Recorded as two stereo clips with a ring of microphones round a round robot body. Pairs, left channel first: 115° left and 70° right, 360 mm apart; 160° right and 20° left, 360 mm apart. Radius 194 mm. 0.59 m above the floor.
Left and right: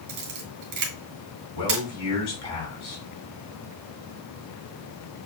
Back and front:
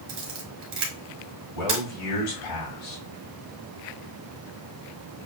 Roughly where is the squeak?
I don't hear a squeak.